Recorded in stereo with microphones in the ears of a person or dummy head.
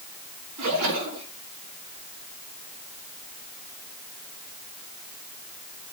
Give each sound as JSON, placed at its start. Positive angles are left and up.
{"t": 0.6, "sound": "a splash", "side_deg": -80, "distance_m": 5.0}